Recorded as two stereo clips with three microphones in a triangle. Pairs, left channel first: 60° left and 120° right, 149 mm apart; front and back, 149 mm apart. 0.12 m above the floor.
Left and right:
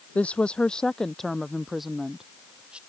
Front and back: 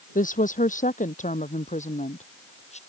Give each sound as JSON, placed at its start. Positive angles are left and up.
{"t": 0.1, "sound": "a woman speaking", "azimuth_deg": -20}